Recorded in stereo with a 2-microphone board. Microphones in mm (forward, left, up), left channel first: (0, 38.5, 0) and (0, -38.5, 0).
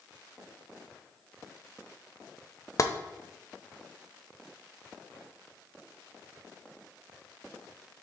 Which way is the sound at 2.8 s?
45° left (ahead or behind).